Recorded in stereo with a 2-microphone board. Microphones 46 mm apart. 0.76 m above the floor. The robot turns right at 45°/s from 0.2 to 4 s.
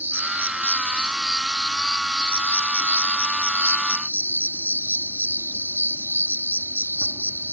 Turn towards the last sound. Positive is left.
turn(degrees=105)